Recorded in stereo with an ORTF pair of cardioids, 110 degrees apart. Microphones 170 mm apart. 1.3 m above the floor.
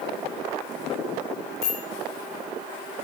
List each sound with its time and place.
1.6 s a bicycle bell: 65° left, 9.5 m